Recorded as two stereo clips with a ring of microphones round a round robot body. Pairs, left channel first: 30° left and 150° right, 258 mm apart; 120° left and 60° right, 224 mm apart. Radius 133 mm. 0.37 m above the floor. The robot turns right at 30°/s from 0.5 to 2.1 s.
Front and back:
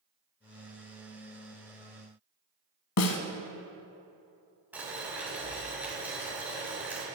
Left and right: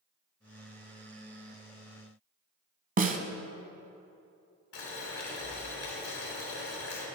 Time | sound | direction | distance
3.0 | a snare drum | 5° right | 1.0 m
4.7 | boiling | 125° left | 3 m